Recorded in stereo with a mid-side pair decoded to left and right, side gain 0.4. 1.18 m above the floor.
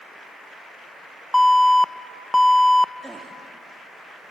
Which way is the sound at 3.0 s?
10° right.